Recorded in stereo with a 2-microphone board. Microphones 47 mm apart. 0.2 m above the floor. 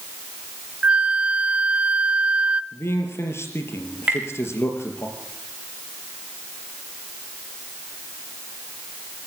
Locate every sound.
0.8 s a flute: 30° right (ahead or behind), 0.7 m
2.7 s a man speaking: 65° left (ahead or behind), 4 m
4.1 s tapping: 25° right (ahead or behind), 7 m